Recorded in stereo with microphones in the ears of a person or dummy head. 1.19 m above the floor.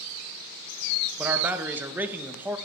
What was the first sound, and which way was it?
A man speaking, 10° right (ahead or behind).